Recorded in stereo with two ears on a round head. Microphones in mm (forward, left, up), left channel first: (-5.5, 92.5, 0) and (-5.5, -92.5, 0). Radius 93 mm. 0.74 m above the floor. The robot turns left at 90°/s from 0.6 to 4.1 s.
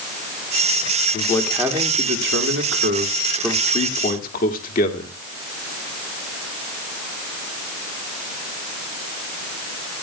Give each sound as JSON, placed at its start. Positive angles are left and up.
{"t": 1.1, "sound": "a man speaking", "azimuth_deg": 35, "distance_m": 2.0}